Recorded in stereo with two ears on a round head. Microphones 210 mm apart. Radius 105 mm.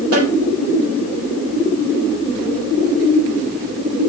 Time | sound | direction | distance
0.1 | a snare drum | 65° right (ahead or behind) | 3.5 m